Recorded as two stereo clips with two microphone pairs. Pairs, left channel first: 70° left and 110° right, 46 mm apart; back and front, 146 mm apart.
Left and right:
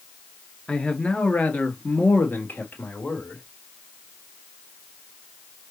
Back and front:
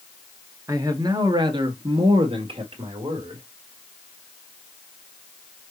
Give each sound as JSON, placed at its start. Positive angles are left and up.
{"t": 0.7, "sound": "a man speaking", "azimuth_deg": 25, "distance_m": 1.2}